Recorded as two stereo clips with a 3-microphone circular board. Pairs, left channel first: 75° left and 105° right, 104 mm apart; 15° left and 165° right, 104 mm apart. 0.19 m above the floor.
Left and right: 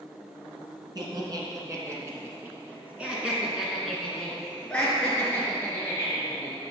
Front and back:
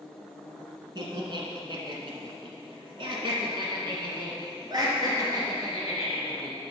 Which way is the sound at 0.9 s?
140° right.